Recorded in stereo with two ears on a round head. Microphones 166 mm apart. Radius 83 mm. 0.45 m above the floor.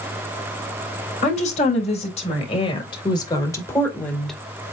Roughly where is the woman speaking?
Left.